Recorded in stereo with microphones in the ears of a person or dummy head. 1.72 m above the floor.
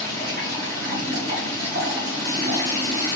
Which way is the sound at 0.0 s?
55° right (ahead or behind).